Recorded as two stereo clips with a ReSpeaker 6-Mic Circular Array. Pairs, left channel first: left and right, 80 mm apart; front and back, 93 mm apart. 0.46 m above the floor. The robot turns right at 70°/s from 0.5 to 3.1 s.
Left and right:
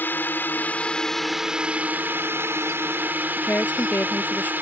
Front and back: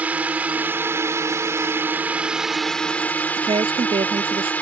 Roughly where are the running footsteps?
I don't hear running footsteps.